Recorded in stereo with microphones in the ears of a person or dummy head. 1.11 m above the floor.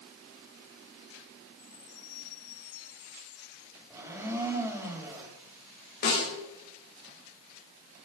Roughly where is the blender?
Centre.